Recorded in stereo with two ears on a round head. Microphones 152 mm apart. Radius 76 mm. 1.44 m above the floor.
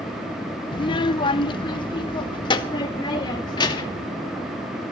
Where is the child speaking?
30° left (ahead or behind), 0.6 m; by 4.1 s 25° left (ahead or behind), 2.5 m.